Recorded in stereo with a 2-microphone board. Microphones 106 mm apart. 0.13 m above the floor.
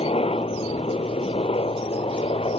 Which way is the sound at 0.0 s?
65° left (ahead or behind).